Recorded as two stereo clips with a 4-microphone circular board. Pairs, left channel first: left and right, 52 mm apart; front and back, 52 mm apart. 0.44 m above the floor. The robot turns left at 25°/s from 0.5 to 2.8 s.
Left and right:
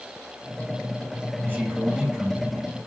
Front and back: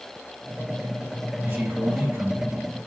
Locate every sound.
1.4 s a man speaking: 145° right, 2.5 m; by 2.9 s straight behind, 2.5 m